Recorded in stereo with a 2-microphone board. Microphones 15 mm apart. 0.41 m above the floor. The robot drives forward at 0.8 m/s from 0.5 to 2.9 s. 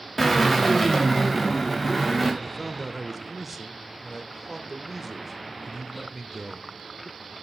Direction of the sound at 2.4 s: 15° right (ahead or behind).